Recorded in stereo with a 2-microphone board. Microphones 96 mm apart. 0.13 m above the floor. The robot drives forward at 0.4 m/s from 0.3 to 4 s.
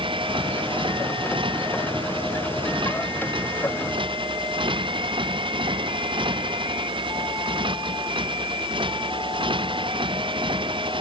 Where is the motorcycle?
60° right (ahead or behind).